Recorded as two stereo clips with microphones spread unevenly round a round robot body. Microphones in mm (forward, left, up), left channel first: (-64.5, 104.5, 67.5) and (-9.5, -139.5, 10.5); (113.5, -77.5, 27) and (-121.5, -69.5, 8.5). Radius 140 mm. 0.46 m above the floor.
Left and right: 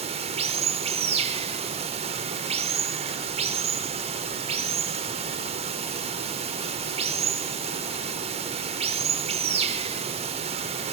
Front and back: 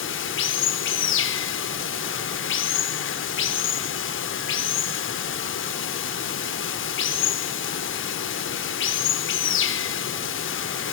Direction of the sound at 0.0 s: 25° right.